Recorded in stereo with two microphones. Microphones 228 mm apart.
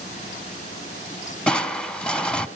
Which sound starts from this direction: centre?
Crushing, at 1.5 s.